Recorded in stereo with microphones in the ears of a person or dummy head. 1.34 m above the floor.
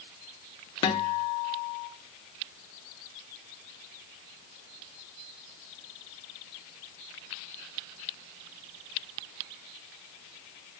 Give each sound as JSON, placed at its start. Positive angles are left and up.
{"t": 0.8, "sound": "a guitar", "side_deg": 25, "distance_m": 1.0}